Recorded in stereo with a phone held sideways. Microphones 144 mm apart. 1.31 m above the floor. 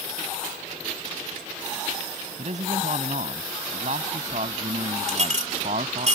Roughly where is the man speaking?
Right.